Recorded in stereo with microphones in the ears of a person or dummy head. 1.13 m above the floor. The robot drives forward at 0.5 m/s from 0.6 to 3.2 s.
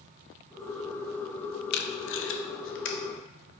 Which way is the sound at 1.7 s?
55° left (ahead or behind).